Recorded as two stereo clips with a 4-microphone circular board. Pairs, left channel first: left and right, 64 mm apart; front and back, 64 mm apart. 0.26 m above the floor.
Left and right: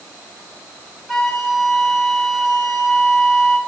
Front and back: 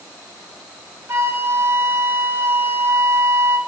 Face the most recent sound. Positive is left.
turn(degrees=180)